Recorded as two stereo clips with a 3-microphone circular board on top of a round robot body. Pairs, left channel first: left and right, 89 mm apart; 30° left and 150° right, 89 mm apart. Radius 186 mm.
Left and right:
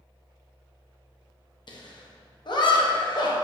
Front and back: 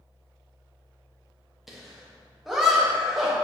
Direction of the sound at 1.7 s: 125° left.